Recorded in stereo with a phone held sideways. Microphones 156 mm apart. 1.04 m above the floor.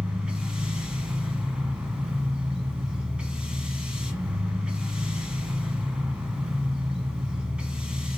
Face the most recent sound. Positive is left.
turn(degrees=-5)  # may be behind; listen again after turning